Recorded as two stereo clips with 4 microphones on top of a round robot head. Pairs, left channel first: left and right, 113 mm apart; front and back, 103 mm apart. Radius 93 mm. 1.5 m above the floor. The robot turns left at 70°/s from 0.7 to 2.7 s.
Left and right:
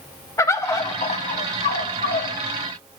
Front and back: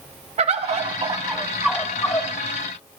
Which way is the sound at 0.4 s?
155° left.